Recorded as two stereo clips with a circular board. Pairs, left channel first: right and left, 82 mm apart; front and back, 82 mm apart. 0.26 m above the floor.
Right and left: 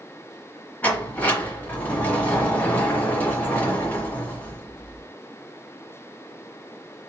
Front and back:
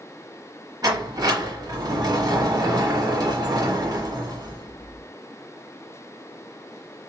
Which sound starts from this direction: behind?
A sliding door, at 0.8 s.